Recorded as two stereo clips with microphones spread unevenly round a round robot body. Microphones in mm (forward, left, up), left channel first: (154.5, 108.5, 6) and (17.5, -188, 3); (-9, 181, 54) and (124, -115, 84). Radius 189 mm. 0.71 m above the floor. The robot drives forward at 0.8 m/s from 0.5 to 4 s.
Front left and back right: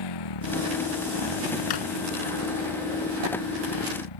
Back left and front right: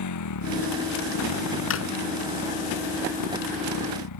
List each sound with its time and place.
0.0 s a motorcycle: 80° left; by 4.2 s 85° left
1.7 s a drawer: 60° left; by 1.9 s 65° left